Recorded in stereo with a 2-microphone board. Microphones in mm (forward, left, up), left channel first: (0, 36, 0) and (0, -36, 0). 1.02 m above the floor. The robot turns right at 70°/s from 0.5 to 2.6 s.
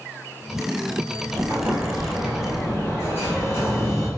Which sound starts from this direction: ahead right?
An explosion, at 1.3 s.